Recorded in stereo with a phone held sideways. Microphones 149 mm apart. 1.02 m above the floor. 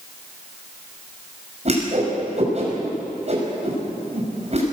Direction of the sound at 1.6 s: 50° right (ahead or behind).